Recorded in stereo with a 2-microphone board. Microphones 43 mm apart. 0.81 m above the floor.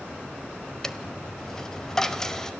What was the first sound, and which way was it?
A dropped coin, 15° left (ahead or behind).